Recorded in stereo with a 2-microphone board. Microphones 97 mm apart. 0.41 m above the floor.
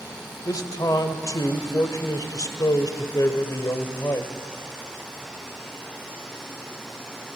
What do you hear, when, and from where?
0.5 s a man speaking: 40° left (ahead or behind), 1.4 m